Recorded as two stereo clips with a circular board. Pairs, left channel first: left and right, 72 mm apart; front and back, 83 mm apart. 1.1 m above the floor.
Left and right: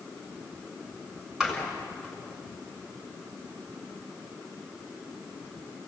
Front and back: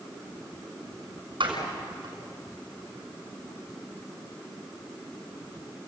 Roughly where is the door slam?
Behind.